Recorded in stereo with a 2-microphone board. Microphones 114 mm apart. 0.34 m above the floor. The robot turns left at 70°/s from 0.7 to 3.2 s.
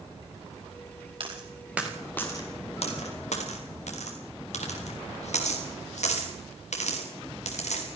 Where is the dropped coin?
50° right (ahead or behind), 5.5 m; by 7.9 s 85° left, 5.5 m.